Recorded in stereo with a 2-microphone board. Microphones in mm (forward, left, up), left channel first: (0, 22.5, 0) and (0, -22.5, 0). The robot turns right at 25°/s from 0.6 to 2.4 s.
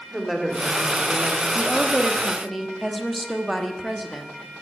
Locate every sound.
0.1 s a woman speaking: 5° right (ahead or behind), 2 m; by 1.4 s 25° right (ahead or behind), 2 m
1.6 s a woman speaking: 15° left (ahead or behind), 1.0 m; by 4.5 s centre (ahead or behind), 1.0 m